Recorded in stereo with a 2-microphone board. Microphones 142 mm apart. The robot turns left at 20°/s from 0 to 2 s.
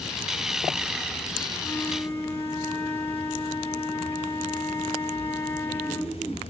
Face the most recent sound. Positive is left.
turn(degrees=15)  # may be behind; listen again after turning